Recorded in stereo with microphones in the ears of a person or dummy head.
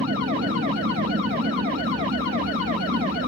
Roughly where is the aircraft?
Right.